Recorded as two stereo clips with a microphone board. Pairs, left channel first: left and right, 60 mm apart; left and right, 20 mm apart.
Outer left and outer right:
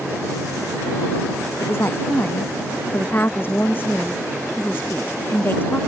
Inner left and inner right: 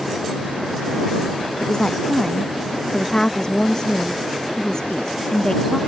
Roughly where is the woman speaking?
Left.